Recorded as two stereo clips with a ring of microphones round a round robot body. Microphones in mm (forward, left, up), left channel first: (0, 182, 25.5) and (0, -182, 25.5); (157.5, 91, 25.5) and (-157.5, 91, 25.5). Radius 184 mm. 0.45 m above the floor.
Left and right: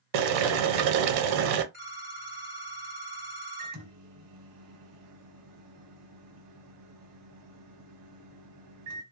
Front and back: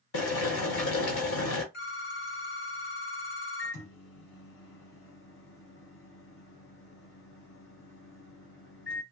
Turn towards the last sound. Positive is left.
turn(degrees=-50)